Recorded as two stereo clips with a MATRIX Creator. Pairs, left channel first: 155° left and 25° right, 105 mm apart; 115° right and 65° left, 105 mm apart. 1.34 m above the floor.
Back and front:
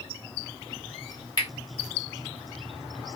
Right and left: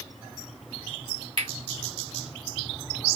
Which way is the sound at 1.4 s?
105° left.